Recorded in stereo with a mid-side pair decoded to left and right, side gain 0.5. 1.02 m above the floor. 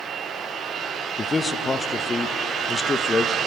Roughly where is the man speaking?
Ahead left.